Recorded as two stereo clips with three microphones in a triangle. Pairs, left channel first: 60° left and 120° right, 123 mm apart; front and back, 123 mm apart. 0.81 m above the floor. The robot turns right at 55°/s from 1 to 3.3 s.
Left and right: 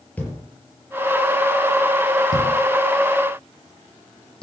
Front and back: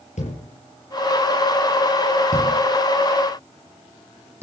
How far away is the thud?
About 6.5 m.